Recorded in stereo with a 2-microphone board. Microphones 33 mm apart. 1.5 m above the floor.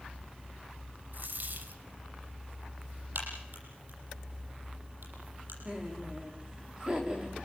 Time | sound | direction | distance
1.1 | a dropped coin | 60° right (ahead or behind) | 2.5 m
3.1 | a crack | 70° right (ahead or behind) | 9 m
5.7 | laughter | 20° right (ahead or behind) | 4 m